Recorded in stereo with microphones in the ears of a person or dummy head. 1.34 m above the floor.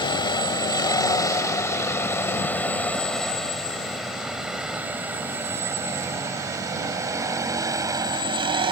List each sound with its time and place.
0.0 s a vehicle: 25° left (ahead or behind); by 8.7 s 30° right (ahead or behind)